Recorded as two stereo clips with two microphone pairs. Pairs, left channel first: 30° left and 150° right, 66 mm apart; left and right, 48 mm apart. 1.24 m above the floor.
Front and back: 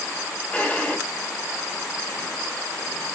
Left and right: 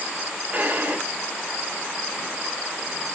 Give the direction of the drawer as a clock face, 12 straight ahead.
1 o'clock.